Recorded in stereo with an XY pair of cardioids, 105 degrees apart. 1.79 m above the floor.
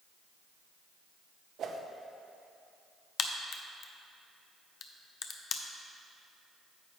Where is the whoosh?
60° right, 0.7 m.